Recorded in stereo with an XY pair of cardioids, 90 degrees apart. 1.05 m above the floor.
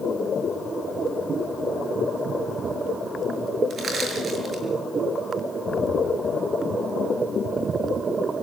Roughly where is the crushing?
Ahead right.